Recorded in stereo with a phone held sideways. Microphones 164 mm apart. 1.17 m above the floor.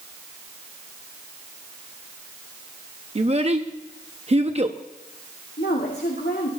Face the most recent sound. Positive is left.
turn(degrees=80)